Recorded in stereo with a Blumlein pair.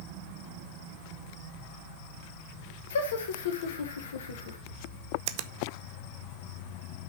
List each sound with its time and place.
2.9 s laughter: 60° left, 1.4 m
5.3 s a finger snap: 50° right, 0.6 m